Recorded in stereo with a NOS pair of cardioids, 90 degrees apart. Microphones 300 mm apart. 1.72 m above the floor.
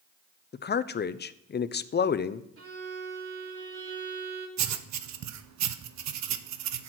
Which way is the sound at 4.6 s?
65° right.